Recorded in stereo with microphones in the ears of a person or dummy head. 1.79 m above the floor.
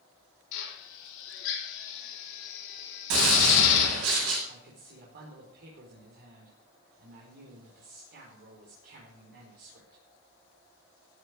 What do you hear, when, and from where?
0.5 s a drill: 80° left, 4.5 m
3.1 s a gunshot: 85° right, 8 m
4.5 s a man speaking: 60° right (ahead or behind), 4.5 m